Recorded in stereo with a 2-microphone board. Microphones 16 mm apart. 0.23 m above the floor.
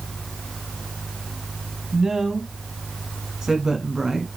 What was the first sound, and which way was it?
A woman speaking, 35° right (ahead or behind).